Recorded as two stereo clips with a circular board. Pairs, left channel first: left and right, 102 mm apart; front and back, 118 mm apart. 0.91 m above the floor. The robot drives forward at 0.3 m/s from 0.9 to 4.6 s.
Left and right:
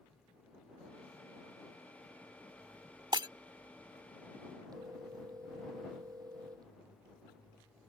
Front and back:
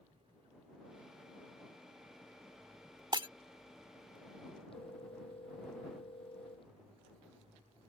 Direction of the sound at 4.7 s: 40° right.